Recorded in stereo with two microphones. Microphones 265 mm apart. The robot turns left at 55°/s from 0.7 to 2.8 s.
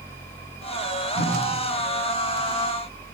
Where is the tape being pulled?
80° left, 8.5 m; by 1.3 s 70° left (ahead or behind), 8.5 m.